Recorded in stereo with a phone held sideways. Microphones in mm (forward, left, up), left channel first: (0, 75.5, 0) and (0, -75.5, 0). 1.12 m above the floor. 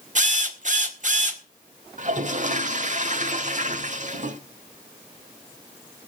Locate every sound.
0.1 s a drill: 50° right (ahead or behind), 1.6 m
2.0 s a toilet flushing: 50° right (ahead or behind), 1.3 m